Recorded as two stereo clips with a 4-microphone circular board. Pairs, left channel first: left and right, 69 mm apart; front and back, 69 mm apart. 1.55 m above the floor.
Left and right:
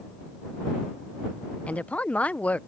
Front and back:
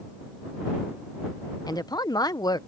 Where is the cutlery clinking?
I don't hear cutlery clinking.